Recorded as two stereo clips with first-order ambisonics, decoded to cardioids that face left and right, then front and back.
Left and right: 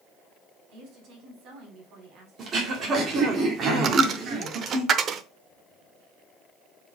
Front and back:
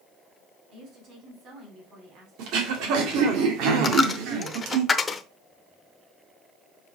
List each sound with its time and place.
0.7 s a woman speaking: 125° right, 3.5 m
2.4 s throat clearing: 150° right, 2.0 m
3.8 s a dropped coin: 65° right, 0.7 m